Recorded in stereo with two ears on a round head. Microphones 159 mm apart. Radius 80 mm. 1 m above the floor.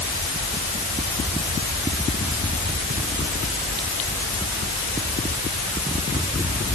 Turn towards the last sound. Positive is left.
No sound to turn to.